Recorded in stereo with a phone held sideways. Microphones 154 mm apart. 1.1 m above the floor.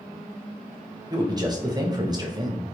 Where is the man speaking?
25° right (ahead or behind), 0.7 m.